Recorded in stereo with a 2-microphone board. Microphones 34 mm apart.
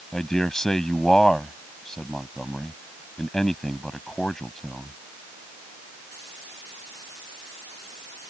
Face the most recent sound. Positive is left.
turn(degrees=20)  # may be behind; listen again after turning